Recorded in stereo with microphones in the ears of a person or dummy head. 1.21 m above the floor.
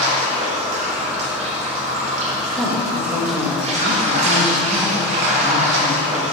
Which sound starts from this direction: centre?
A woman speaking, at 2.5 s.